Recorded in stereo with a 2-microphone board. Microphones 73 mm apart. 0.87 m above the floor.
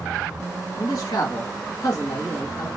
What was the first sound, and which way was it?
A man speaking, 65° left (ahead or behind).